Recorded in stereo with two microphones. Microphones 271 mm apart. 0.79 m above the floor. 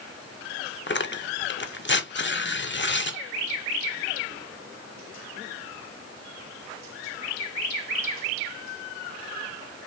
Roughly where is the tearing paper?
Left.